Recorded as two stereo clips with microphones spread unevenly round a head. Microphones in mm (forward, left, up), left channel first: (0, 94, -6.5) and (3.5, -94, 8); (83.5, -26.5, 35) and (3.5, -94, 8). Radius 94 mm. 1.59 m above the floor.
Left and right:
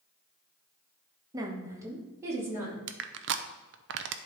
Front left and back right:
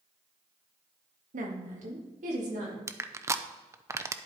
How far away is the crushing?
About 0.6 m.